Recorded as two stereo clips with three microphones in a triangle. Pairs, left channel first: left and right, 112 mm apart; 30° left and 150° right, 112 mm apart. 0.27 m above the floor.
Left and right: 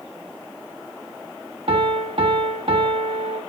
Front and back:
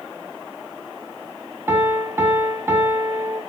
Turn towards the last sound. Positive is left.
turn(degrees=-85)